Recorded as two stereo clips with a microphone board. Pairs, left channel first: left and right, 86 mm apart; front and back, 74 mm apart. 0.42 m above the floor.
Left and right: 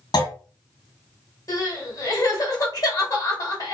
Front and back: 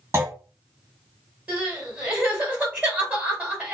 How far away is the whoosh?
I don't hear a whoosh.